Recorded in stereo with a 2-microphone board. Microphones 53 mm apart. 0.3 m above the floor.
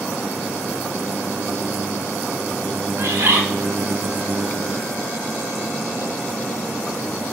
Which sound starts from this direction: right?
A bird, at 3.0 s.